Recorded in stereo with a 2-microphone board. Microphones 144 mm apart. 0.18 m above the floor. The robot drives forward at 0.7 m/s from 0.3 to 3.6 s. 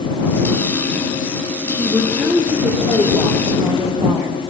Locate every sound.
1.7 s a woman speaking: 25° right (ahead or behind), 5.5 m; by 4.5 s 20° right (ahead or behind), 7 m